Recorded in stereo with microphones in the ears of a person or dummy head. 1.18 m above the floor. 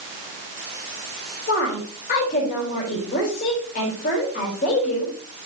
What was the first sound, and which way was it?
A woman speaking, 40° left (ahead or behind).